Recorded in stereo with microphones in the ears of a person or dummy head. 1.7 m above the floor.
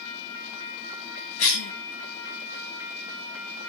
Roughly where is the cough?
Left.